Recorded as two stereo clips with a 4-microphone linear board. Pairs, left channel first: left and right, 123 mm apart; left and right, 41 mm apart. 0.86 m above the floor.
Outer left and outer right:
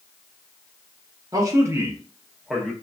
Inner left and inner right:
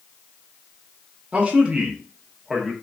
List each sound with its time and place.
1.3 s a man speaking: 30° right (ahead or behind), 1.0 m; by 2.7 s 5° left (ahead or behind), 1.1 m